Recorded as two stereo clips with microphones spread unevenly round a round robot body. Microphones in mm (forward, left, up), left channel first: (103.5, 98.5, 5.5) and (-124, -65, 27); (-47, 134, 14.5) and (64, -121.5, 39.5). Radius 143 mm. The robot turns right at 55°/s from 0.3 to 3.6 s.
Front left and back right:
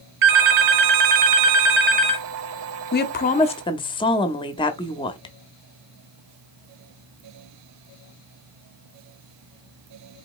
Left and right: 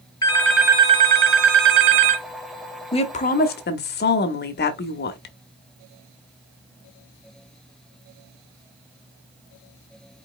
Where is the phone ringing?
170° right, 0.9 m; by 2.3 s 60° right, 0.9 m.